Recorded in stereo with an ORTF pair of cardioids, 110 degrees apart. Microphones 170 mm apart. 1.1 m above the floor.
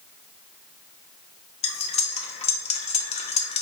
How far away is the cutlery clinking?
About 0.6 m.